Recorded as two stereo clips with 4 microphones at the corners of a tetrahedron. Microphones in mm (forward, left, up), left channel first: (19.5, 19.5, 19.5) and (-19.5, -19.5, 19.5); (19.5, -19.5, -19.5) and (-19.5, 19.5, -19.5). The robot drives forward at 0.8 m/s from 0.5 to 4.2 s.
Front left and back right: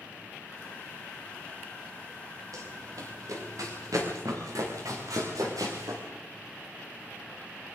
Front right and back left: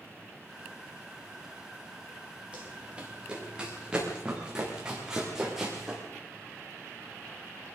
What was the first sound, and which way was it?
Running footsteps, 150° right.